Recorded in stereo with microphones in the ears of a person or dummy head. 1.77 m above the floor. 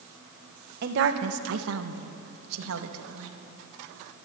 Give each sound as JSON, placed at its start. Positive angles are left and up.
{"t": 0.8, "sound": "a woman speaking", "side_deg": -60, "distance_m": 1.6}